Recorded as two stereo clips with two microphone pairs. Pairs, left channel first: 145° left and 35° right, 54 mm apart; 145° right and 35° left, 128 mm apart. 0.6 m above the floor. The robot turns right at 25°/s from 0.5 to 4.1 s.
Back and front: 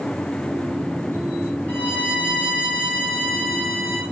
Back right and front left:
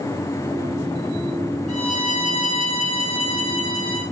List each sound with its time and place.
1.7 s a violin: 155° right, 1.8 m; by 4.0 s 100° right, 1.8 m